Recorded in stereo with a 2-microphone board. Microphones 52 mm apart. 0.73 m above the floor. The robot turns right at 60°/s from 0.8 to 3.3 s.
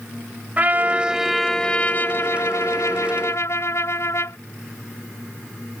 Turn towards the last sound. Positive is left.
turn(degrees=115)